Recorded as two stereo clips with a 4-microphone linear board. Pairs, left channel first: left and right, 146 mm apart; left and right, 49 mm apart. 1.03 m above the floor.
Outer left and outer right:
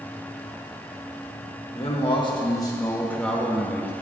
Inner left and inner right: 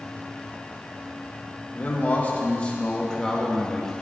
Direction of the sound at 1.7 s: 40° left (ahead or behind).